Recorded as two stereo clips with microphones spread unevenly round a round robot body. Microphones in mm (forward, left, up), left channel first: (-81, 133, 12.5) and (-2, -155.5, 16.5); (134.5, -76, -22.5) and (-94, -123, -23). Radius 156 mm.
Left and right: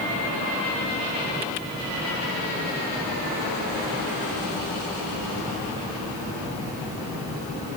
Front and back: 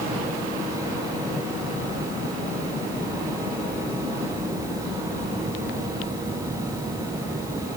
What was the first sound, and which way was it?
Only background noise.